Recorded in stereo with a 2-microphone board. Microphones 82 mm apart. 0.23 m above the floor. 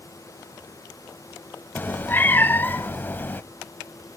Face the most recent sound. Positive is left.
turn(degrees=25)  # may be behind; listen again after turning